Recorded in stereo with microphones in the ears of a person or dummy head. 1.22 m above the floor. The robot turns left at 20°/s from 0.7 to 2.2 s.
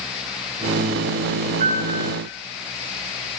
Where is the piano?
40° right (ahead or behind), 6 m; by 2.1 s 50° right (ahead or behind), 6 m.